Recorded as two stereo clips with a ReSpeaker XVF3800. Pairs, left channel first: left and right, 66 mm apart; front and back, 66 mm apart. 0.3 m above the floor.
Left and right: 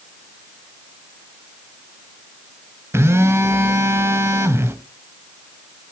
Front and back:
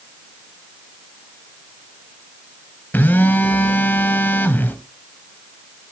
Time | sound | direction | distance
2.9 | a phone buzzing | 55° right | 1.3 m